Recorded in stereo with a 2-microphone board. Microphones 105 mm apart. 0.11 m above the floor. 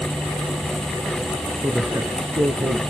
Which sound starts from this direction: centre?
A man speaking, at 1.6 s.